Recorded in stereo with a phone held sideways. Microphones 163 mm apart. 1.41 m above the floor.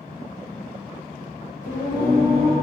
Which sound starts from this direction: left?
Singing, at 1.6 s.